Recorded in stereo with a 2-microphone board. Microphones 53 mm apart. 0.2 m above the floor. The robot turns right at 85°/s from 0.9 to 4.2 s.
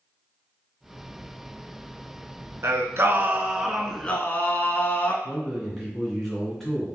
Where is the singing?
95° right, 0.7 m; by 5.1 s 40° left, 0.7 m.